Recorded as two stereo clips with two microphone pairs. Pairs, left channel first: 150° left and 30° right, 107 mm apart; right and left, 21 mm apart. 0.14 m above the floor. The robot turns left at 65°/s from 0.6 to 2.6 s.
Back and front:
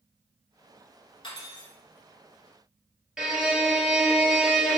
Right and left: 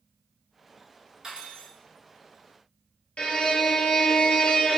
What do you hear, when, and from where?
1.2 s cutlery clinking: 135° left, 1.0 m; by 1.7 s 105° left, 1.0 m
3.2 s a violin: 115° right, 0.6 m